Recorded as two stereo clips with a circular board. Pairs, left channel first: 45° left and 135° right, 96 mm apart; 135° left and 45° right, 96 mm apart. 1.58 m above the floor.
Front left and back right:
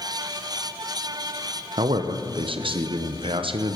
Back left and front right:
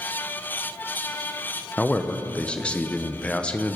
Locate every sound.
1.8 s a man speaking: 150° right, 0.8 m